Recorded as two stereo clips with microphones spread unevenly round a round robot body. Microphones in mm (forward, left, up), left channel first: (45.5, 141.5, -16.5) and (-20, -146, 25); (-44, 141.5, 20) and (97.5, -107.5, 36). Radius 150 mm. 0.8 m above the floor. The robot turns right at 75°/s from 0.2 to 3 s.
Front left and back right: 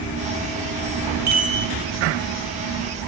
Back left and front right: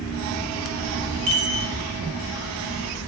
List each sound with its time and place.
1.3 s a chime: 80° right, 1.9 m; by 1.7 s 50° right, 1.9 m